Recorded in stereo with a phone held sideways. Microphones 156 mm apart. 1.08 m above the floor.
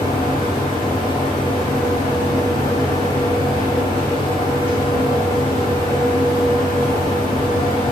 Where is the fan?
70° left (ahead or behind), 1.8 m.